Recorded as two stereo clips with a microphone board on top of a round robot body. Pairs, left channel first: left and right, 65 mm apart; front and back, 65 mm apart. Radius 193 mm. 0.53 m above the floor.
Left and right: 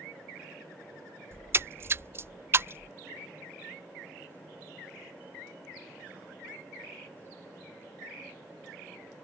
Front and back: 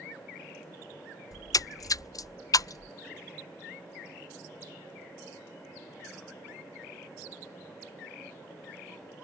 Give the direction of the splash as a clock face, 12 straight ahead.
1 o'clock.